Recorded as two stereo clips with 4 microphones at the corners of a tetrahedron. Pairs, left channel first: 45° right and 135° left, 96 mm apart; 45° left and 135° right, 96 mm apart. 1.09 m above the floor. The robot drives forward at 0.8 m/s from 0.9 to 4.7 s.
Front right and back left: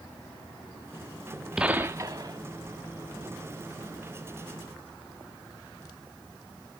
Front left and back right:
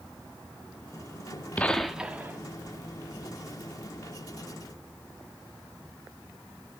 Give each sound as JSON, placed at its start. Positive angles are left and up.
{"t": 1.6, "sound": "a gunshot", "azimuth_deg": 70, "distance_m": 0.6}